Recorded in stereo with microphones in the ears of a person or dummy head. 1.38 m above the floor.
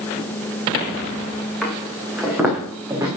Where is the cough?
I don't hear a cough.